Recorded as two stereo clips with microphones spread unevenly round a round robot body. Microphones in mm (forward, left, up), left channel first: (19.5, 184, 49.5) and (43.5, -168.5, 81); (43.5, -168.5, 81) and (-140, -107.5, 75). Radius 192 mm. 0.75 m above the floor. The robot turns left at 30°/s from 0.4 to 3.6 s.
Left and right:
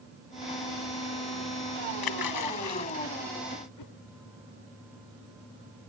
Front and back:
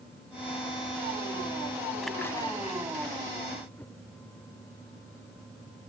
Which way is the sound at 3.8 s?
65° left.